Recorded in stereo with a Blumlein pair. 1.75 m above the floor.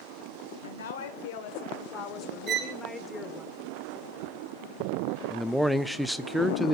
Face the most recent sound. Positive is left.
turn(degrees=0)